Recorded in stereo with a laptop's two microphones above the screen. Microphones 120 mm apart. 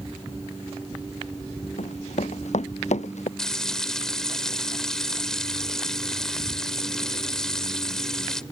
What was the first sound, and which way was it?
Running footsteps, 70° left (ahead or behind).